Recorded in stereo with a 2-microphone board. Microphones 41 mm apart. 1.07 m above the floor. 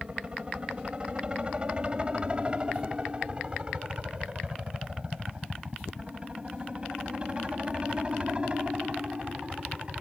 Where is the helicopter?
25° right (ahead or behind).